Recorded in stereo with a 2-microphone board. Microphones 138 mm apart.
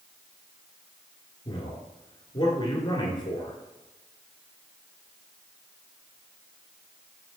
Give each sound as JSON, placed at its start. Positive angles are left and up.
{"t": 1.4, "sound": "a man speaking", "side_deg": 35, "distance_m": 1.7}